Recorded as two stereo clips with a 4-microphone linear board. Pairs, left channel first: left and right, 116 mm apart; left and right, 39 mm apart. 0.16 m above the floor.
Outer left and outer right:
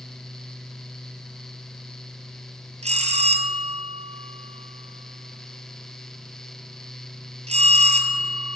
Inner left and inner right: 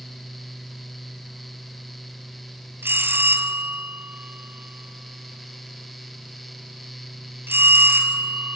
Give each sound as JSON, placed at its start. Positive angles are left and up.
{"t": 2.8, "sound": "a bell", "side_deg": -70, "distance_m": 1.6}